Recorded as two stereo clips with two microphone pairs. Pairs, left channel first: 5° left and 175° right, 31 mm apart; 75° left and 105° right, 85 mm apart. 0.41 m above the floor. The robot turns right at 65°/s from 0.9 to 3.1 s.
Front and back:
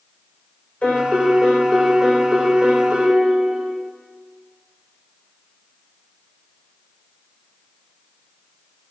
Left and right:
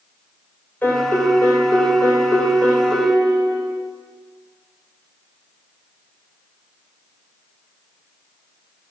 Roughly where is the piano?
Ahead.